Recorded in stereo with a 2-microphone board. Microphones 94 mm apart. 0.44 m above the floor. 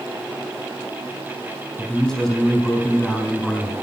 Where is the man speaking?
5° left (ahead or behind), 3.5 m.